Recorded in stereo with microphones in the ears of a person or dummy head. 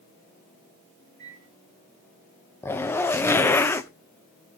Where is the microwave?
15° left (ahead or behind), 9.5 m.